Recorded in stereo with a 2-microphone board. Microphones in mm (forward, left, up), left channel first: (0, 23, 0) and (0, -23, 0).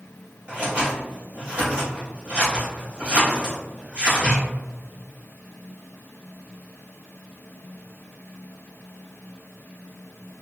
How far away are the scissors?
About 1.7 m.